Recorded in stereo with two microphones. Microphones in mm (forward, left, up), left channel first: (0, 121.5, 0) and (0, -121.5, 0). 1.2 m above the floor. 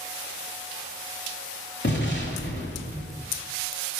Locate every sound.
1.8 s an explosion: 50° left (ahead or behind), 2.5 m